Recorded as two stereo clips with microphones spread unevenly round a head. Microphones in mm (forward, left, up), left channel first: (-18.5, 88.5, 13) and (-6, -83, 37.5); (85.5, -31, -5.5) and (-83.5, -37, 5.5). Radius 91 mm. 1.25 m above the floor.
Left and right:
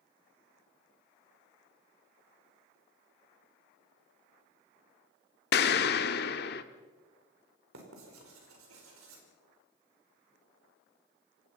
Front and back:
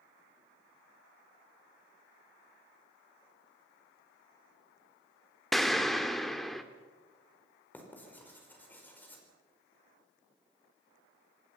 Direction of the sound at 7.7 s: 75° right.